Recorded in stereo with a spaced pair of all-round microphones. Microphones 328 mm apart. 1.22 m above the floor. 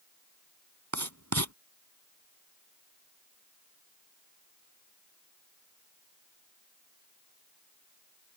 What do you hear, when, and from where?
0.9 s writing: 55° right (ahead or behind)